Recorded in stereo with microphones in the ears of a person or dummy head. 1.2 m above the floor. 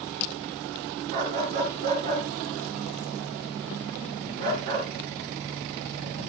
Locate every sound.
1.1 s a dog barking: 50° right (ahead or behind), 4.5 m